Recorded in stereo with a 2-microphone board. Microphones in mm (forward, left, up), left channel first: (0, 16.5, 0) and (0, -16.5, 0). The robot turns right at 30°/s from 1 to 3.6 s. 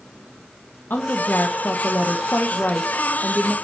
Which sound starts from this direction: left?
A woman speaking, at 0.9 s.